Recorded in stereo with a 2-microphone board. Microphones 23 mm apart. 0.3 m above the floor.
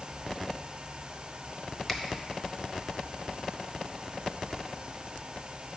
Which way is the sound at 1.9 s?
20° left (ahead or behind).